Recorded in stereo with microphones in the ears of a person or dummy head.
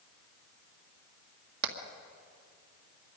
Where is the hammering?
70° right (ahead or behind), 1.9 m.